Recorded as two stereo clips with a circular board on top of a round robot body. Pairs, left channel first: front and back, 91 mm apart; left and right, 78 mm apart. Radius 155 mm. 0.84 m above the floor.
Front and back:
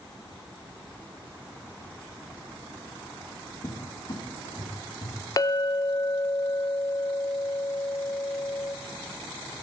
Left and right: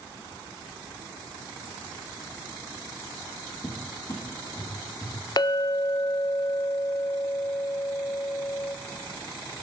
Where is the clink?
50° left, 0.5 m.